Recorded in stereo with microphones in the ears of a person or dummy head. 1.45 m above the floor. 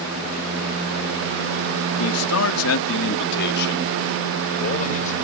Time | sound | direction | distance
2.0 | a man speaking | 80° left | ?